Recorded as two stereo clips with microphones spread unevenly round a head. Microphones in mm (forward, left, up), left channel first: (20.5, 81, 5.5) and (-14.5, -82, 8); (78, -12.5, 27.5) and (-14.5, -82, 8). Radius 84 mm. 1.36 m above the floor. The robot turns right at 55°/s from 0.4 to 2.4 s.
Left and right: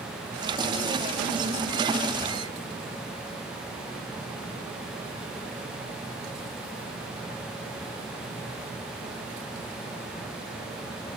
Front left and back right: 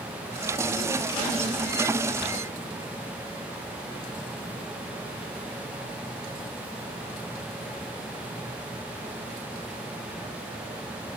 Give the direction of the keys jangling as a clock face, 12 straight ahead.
No keys jangling in this recording.